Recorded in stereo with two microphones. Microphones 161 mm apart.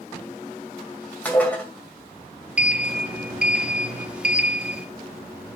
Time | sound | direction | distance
1.2 | dishes clattering | 10° left (ahead or behind) | 1.9 m
2.6 | a sliding door | 5° right (ahead or behind) | 0.8 m